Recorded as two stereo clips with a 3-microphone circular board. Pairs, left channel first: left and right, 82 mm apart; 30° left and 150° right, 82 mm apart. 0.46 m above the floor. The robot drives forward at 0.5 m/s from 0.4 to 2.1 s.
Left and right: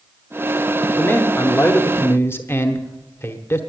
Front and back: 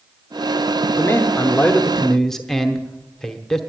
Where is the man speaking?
45° left, 1.1 m; by 3.6 s 110° left, 1.0 m.